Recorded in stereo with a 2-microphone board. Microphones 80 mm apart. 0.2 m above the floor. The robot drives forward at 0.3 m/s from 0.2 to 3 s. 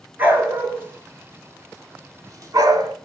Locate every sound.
0.2 s a dog barking: 25° right (ahead or behind), 1.1 m; by 3.0 s 50° right (ahead or behind), 0.5 m